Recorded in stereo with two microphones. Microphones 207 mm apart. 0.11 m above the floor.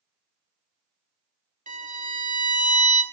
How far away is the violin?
About 0.7 m.